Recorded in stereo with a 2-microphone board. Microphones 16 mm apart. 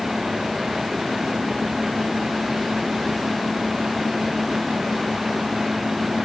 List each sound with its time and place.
Only background noise.